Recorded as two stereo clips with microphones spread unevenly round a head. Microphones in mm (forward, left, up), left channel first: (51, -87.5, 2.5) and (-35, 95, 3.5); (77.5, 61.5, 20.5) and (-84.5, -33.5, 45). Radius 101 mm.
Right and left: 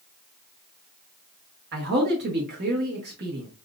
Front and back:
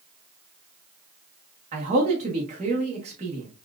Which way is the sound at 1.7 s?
155° left.